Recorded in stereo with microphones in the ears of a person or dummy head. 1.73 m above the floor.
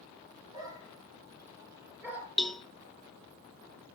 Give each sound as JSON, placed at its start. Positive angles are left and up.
{"t": 0.5, "sound": "a dog barking", "side_deg": -25, "distance_m": 5.5}
{"t": 2.4, "sound": "a cowbell", "side_deg": 0, "distance_m": 0.6}